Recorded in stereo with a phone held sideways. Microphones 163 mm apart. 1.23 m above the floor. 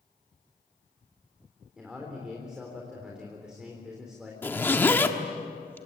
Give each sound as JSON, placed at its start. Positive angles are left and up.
{"t": 1.8, "sound": "a man speaking", "side_deg": -5, "distance_m": 3.5}
{"t": 4.4, "sound": "a zipper", "side_deg": 10, "distance_m": 1.5}